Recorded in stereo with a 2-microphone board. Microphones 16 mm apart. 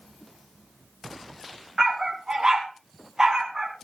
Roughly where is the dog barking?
Right.